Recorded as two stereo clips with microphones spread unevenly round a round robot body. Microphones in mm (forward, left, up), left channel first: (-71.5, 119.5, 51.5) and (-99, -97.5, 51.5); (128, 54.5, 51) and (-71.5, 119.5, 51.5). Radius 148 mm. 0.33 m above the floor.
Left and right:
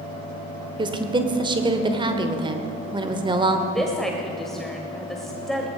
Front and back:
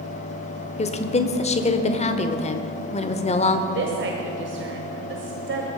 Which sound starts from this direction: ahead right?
A woman speaking, at 0.8 s.